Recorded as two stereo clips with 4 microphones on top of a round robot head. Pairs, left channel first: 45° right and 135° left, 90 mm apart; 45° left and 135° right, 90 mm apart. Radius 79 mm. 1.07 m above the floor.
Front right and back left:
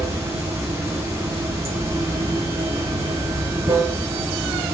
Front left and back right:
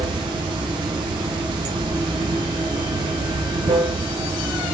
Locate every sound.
0.0 s running water: 170° right, 0.9 m